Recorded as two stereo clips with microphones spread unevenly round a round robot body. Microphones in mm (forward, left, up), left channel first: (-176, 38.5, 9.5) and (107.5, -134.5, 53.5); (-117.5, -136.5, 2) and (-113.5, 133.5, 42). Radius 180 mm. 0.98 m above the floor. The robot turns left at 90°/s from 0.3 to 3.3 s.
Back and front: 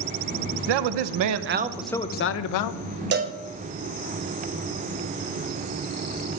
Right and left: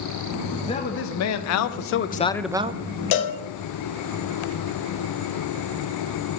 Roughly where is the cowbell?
Right.